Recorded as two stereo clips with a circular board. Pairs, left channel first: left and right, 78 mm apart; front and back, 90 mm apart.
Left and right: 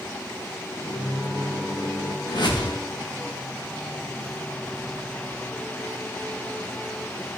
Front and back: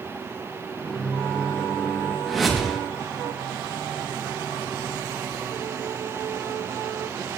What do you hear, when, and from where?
0.8 s a microwave: 85° left, 1.6 m
2.3 s a whoosh: 90° left, 1.9 m